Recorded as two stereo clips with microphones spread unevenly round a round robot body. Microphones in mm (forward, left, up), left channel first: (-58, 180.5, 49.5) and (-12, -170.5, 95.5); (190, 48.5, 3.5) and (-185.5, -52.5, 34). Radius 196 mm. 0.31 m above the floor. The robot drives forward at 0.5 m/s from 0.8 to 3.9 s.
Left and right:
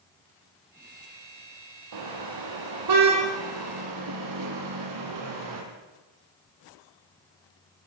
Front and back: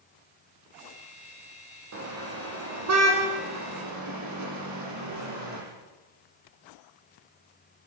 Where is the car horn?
110° right, 6.5 m; by 5.6 s 115° right, 6.5 m.